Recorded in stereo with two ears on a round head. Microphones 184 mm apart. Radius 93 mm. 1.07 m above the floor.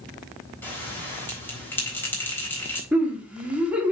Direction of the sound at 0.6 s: 10° left (ahead or behind).